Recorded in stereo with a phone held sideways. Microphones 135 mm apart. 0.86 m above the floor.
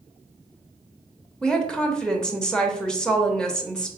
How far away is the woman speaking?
About 0.9 m.